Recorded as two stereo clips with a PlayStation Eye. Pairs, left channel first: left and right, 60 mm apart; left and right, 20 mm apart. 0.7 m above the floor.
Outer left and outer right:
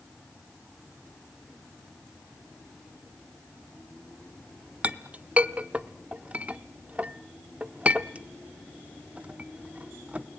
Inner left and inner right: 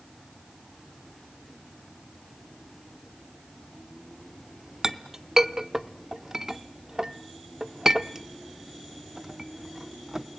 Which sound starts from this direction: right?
A clink, at 4.8 s.